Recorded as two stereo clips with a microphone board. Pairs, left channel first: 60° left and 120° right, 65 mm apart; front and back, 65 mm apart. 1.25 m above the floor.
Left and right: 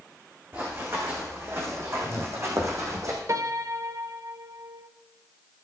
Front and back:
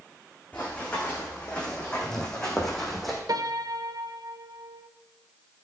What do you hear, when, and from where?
0.5 s running footsteps: 70° right, 4 m; by 3.2 s 95° right, 3 m
3.3 s a piano: 160° right, 0.6 m